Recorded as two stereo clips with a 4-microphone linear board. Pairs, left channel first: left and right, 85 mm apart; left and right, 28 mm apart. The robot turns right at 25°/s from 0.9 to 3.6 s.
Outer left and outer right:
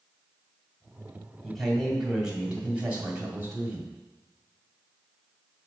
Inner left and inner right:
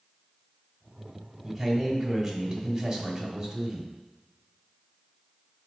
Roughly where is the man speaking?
Behind.